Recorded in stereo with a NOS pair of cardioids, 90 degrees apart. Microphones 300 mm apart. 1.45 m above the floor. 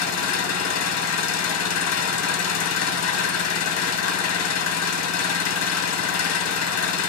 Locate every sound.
0.0 s an engine running: 60° left, 1.4 m